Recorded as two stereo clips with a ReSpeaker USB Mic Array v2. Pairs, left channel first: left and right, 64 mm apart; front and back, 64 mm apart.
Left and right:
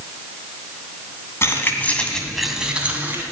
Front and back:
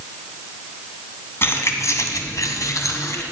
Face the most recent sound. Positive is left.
turn(degrees=-35)